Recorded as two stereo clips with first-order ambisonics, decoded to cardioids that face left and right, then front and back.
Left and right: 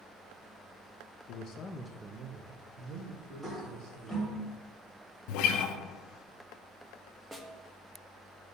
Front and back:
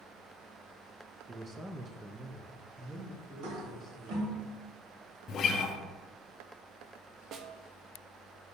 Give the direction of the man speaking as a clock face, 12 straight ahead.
9 o'clock.